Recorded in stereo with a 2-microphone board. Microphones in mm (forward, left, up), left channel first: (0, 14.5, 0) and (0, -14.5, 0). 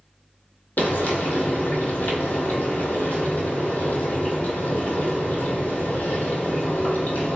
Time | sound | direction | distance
0.8 | frying | 80° left | 0.8 m